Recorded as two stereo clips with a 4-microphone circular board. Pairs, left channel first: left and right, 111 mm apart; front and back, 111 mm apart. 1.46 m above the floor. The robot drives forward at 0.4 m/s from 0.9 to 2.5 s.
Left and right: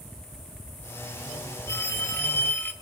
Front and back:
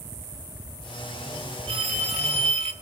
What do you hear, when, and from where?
1.7 s a phone ringing: 155° left, 1.9 m; by 2.7 s 160° left, 2 m